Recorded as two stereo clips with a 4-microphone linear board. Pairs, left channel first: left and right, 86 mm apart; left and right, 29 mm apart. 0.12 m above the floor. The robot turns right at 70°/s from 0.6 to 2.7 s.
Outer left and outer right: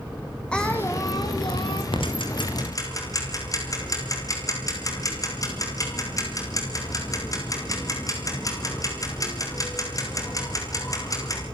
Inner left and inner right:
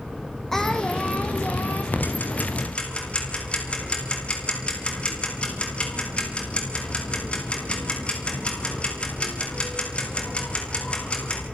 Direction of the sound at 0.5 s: 10° left.